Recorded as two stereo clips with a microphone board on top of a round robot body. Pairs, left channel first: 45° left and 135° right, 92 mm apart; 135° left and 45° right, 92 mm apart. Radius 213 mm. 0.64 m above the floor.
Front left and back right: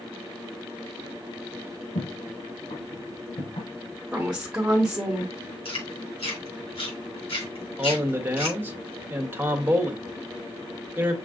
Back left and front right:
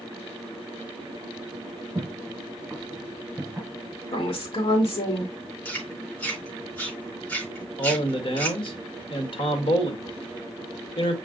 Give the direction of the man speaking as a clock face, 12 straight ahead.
7 o'clock.